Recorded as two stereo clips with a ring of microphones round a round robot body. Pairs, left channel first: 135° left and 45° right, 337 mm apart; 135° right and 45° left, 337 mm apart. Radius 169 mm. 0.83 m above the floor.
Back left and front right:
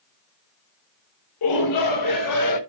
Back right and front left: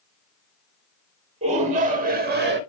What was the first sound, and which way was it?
A shout, 115° left.